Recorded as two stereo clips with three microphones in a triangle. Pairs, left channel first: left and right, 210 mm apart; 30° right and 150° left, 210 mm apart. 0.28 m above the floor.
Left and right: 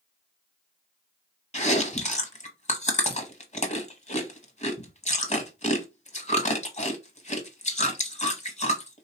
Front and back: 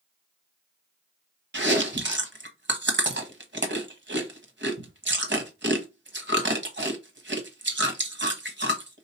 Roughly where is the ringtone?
No ringtone in this recording.